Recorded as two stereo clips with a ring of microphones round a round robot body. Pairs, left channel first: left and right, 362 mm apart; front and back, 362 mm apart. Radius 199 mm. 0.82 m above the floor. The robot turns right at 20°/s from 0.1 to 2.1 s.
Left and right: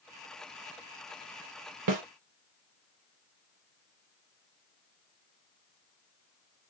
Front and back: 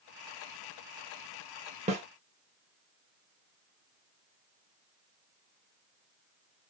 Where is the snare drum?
110° right, 0.9 m; by 2.0 s 105° right, 0.9 m.